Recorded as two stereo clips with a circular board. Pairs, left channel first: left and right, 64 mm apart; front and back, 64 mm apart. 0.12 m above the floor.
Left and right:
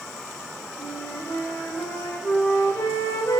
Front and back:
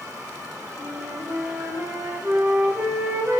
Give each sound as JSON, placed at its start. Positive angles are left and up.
{"t": 0.8, "sound": "a flute", "azimuth_deg": 125, "distance_m": 8.5}